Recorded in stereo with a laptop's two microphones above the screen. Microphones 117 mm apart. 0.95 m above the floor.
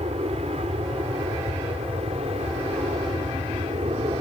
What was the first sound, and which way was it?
An aircraft, 65° right (ahead or behind).